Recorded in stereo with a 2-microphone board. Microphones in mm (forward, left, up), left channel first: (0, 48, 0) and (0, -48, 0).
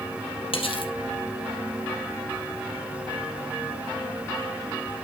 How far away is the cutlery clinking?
About 2.5 m.